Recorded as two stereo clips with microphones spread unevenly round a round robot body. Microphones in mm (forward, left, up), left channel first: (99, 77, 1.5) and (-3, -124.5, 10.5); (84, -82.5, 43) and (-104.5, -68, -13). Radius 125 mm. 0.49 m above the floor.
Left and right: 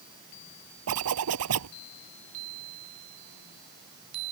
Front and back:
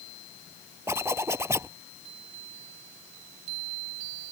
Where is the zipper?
105° right.